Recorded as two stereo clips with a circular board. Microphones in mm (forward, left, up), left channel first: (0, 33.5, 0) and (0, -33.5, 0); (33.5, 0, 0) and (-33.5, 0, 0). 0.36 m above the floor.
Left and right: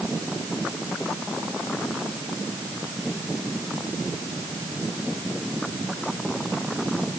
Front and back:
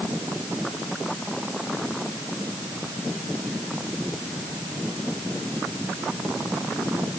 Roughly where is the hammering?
I don't hear hammering.